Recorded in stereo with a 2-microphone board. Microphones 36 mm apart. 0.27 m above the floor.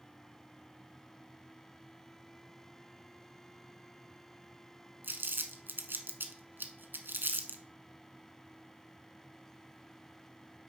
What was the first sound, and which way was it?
Crumpling, 70° right (ahead or behind).